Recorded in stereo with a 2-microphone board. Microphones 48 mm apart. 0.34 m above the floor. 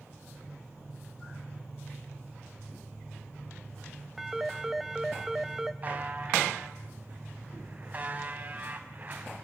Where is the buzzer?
30° right (ahead or behind), 2.5 m.